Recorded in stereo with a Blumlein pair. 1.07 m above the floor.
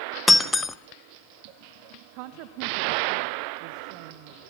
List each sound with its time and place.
0.3 s breaking glass: 10° left, 1.0 m
2.1 s a woman speaking: 45° right, 1.3 m